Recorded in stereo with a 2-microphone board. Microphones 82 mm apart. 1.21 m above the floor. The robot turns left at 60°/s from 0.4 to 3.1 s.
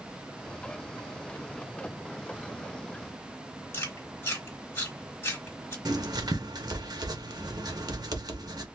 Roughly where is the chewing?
Left.